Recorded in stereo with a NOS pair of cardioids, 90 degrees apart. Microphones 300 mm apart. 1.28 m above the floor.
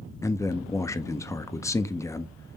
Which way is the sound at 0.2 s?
10° left.